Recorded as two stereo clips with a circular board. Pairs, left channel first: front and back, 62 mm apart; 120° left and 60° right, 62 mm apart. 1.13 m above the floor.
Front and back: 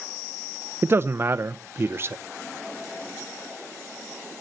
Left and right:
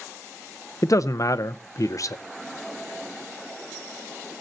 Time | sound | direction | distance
0.8 | a man speaking | 135° left | 0.6 m